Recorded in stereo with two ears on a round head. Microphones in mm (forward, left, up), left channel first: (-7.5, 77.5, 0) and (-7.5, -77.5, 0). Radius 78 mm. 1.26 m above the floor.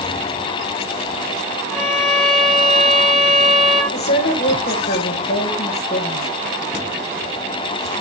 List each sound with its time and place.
1.7 s a violin: centre (ahead or behind), 2.5 m
3.9 s a woman speaking: 50° left (ahead or behind), 1.7 m